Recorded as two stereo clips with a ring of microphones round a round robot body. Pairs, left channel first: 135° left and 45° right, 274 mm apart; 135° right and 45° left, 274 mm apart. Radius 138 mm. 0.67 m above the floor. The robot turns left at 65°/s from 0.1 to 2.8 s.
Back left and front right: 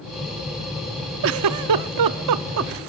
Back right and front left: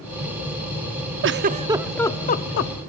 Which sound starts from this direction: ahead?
A giggle, at 1.2 s.